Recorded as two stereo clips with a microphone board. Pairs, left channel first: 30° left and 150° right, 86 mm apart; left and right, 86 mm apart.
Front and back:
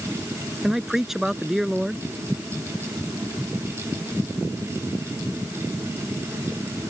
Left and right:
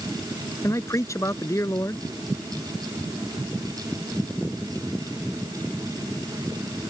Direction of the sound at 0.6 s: 125° left.